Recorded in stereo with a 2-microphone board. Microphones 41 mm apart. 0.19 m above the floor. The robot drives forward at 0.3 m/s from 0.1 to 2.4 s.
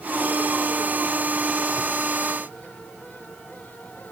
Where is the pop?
I don't hear a pop.